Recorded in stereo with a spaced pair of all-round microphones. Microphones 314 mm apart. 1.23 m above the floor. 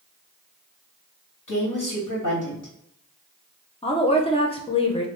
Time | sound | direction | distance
1.5 | a woman speaking | 80° left | 2.0 m
3.8 | a woman speaking | 20° left (ahead or behind) | 0.9 m